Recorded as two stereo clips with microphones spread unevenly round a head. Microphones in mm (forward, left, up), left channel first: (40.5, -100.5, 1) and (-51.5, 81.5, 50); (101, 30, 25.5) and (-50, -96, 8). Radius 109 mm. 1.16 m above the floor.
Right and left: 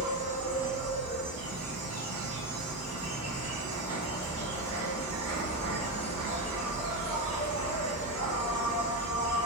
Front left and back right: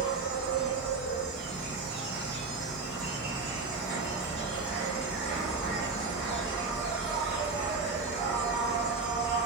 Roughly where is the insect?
Behind left.